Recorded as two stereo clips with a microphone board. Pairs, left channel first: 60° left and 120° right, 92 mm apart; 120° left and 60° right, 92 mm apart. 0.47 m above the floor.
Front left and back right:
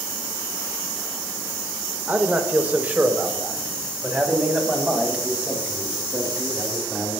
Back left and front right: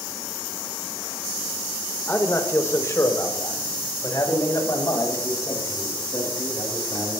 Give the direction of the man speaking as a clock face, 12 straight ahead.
6 o'clock.